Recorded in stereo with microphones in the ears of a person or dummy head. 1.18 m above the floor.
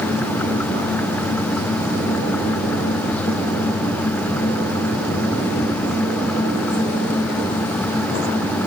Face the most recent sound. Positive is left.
No sound to turn to.